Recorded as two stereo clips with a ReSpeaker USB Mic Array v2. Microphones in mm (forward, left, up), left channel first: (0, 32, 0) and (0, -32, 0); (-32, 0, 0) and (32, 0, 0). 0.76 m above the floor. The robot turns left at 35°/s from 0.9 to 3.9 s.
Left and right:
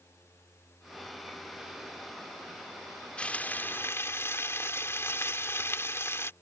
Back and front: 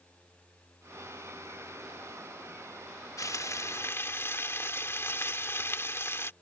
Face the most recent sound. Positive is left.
turn(degrees=135)